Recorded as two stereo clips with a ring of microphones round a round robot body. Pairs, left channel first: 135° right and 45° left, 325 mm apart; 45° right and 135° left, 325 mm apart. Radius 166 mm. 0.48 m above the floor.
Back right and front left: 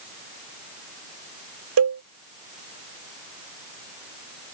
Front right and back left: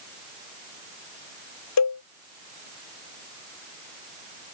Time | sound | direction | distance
1.8 | a cowbell | 5° right | ?